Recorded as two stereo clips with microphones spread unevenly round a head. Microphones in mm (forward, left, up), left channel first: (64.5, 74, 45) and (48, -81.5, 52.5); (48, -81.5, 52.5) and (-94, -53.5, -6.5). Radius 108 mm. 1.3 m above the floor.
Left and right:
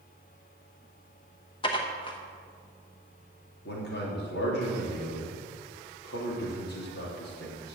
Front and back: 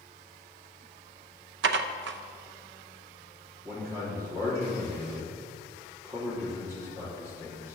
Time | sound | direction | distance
1.6 | dishes clattering | 150° left | 0.7 m
3.6 | a man speaking | 95° left | 4 m